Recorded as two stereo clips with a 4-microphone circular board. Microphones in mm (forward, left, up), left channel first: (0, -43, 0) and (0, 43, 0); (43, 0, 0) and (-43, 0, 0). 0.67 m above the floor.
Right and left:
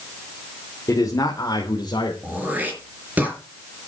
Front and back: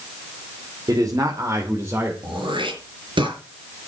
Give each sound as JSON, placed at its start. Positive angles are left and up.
{"t": 0.9, "sound": "a man speaking", "azimuth_deg": -140, "distance_m": 2.5}
{"t": 2.2, "sound": "throat clearing", "azimuth_deg": 160, "distance_m": 4.0}